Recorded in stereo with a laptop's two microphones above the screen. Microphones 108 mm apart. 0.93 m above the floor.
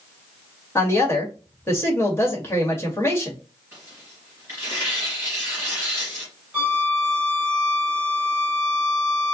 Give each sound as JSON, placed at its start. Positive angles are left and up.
{"t": 0.8, "sound": "a woman speaking", "side_deg": 20, "distance_m": 1.6}
{"t": 3.7, "sound": "tearing paper", "side_deg": -25, "distance_m": 3.0}
{"t": 6.5, "sound": "a violin", "side_deg": -15, "distance_m": 2.5}